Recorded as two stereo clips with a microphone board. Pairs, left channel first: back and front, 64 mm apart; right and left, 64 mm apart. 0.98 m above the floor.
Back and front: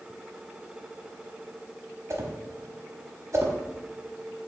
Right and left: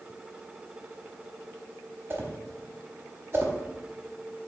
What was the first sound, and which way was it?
A whoosh, 35° left.